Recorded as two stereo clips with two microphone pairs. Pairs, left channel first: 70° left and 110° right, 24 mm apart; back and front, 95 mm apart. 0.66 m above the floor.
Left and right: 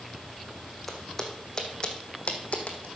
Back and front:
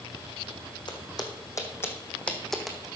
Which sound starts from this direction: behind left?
Footsteps, at 0.9 s.